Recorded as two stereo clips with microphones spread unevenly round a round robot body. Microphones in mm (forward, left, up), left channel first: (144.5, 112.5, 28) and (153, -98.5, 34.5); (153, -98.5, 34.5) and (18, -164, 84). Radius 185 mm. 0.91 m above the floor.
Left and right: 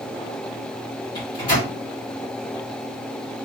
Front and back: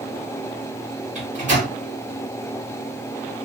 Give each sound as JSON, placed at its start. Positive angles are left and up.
{"t": 1.1, "sound": "a microwave", "azimuth_deg": 135, "distance_m": 1.6}